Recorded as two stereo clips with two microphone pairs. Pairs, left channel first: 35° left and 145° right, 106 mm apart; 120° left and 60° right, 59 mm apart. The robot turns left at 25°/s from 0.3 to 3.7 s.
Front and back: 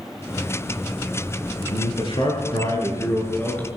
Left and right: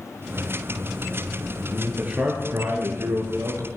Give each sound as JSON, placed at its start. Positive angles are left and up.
{"t": 1.7, "sound": "a man speaking", "azimuth_deg": 5, "distance_m": 7.5}